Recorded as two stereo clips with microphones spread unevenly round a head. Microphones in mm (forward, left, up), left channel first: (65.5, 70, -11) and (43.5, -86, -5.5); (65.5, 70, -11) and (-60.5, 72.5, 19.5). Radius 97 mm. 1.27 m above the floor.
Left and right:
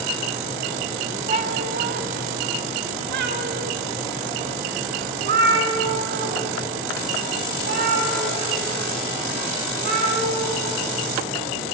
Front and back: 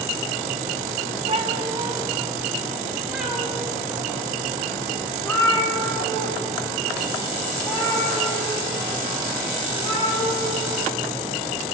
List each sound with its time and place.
1.3 s a cat meowing: 150° right, 1.0 m; by 10.6 s 80° right, 6.5 m